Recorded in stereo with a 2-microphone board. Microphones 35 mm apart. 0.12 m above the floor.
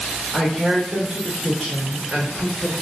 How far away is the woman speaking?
About 1.2 m.